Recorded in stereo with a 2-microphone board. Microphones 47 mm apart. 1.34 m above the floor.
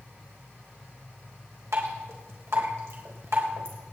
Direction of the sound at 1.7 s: 80° right.